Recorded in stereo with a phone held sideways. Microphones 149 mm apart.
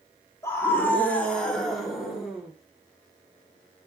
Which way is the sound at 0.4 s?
15° left (ahead or behind).